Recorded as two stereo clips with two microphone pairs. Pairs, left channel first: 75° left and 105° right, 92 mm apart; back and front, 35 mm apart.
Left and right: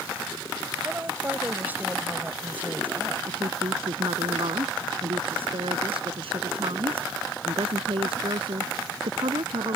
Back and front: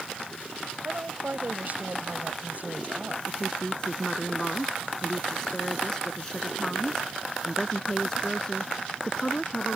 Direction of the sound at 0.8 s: 35° right.